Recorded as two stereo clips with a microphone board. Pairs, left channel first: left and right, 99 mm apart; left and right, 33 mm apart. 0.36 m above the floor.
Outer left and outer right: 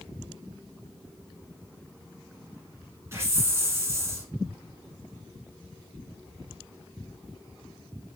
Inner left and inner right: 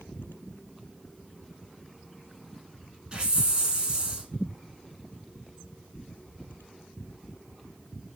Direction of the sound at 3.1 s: 30° right (ahead or behind).